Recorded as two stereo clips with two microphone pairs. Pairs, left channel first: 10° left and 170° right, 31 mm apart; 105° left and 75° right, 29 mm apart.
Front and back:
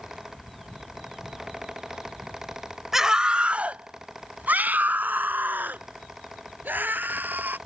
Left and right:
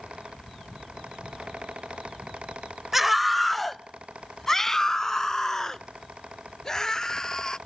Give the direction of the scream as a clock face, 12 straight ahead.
4 o'clock.